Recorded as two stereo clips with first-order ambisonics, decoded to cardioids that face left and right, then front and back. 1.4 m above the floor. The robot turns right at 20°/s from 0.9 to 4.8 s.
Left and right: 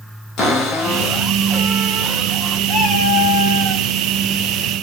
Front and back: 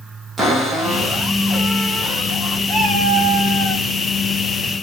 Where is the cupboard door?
115° left, 1.3 m; by 2.6 s 145° left, 1.3 m.